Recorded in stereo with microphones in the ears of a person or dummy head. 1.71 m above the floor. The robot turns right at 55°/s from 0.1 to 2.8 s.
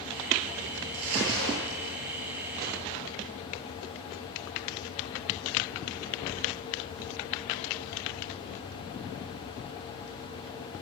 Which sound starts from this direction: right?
Crumpling, at 0.9 s.